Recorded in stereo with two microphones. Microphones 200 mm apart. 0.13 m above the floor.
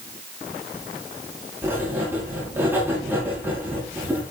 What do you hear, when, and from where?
1.6 s writing: 10° right (ahead or behind), 9.5 m